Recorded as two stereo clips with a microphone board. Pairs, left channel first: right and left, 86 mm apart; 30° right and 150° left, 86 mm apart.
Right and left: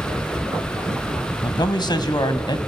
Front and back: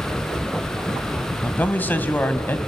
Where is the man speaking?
95° right, 1.6 m.